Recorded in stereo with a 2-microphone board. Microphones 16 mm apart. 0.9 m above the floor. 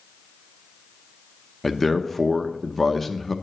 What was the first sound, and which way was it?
A man speaking, 15° left (ahead or behind).